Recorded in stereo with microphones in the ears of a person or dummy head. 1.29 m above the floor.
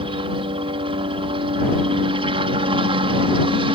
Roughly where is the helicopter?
Right.